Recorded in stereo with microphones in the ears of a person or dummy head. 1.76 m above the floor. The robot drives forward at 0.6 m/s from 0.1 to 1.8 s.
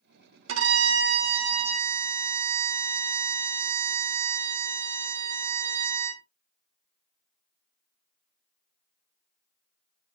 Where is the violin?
85° right, 0.7 m; by 6.2 s 45° right (ahead or behind), 1.0 m.